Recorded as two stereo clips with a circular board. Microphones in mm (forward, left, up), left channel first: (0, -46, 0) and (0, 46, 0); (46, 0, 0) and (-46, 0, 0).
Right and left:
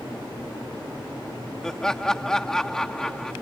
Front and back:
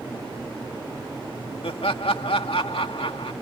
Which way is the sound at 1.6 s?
5° right.